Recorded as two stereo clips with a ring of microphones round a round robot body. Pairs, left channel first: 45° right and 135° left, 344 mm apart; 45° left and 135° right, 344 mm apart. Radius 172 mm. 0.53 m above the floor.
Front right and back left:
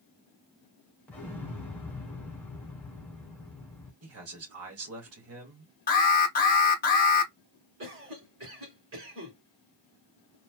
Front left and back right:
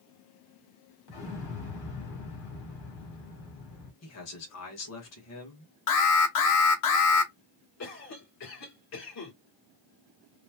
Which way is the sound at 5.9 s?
15° left.